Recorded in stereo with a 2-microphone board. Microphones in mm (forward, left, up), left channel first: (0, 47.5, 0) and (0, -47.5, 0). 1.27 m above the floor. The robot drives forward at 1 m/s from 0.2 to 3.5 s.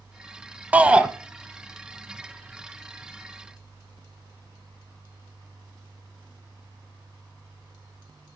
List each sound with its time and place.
0.7 s a shout: 15° right (ahead or behind), 0.7 m; by 1.1 s 10° right (ahead or behind), 1.0 m